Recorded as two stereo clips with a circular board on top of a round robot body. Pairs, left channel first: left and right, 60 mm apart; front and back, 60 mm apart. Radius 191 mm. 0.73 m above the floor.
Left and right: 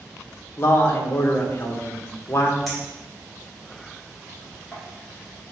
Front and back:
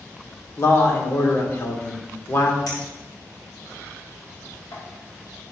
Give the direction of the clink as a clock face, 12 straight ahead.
12 o'clock.